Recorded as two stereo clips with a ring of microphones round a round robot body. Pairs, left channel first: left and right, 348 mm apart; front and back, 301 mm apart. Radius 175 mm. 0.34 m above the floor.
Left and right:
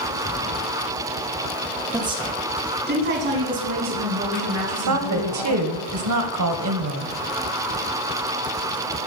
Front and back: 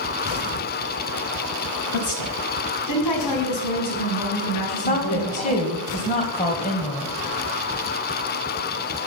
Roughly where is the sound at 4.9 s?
Ahead right.